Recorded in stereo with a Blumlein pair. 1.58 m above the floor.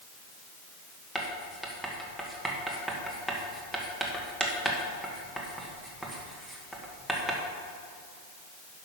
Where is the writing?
Straight ahead, 1.7 m.